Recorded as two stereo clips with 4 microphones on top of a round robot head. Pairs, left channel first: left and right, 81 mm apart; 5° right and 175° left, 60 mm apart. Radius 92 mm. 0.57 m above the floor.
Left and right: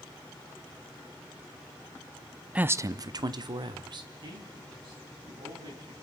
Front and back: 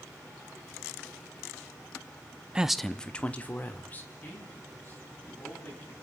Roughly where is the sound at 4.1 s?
Ahead right.